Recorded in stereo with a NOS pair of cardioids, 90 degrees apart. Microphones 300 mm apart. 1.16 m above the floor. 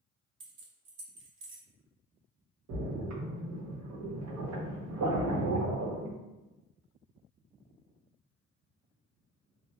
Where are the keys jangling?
45° right, 0.6 m.